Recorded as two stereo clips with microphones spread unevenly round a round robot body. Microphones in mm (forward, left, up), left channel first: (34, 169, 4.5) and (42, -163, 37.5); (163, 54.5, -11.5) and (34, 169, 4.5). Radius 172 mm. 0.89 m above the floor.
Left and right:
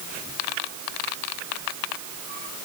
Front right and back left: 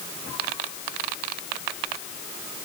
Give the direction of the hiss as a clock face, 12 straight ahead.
I don't hear a hiss.